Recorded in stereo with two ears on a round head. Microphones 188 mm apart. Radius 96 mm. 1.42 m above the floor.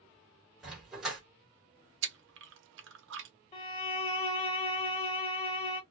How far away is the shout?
No shout in this recording.